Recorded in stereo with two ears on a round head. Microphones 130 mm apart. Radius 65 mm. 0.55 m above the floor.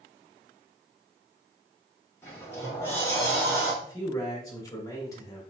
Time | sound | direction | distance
2.2 | a sliding door | 15° left (ahead or behind) | 1.2 m
3.8 | a man speaking | 25° left (ahead or behind) | 1.1 m